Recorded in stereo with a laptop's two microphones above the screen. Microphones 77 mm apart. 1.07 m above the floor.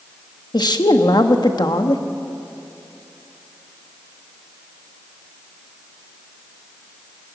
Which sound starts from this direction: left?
A woman speaking, at 0.5 s.